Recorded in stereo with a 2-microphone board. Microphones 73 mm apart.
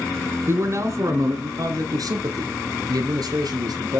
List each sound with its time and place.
0.5 s a man speaking: 40° right (ahead or behind), 1.6 m; by 4.0 s 65° right (ahead or behind), 3.5 m